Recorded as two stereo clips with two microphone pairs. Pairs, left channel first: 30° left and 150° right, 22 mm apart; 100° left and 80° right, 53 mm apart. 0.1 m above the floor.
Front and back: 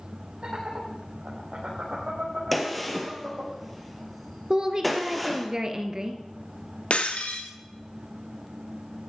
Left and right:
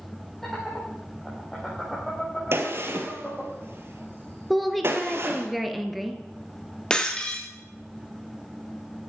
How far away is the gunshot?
About 2 m.